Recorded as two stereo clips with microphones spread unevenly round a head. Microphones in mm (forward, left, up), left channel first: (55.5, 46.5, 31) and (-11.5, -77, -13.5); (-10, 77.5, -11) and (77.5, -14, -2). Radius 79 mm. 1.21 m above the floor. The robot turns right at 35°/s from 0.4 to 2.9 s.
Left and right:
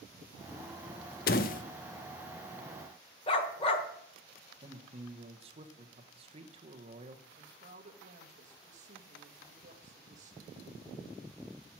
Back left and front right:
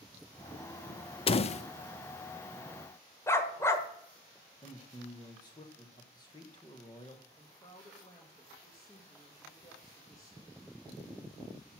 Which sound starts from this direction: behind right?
A woman speaking, at 7.3 s.